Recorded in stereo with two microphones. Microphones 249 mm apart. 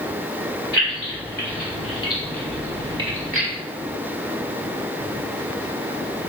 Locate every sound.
0.7 s keys jangling: 50° left (ahead or behind), 1.5 m; by 3.5 s 35° right (ahead or behind), 1.2 m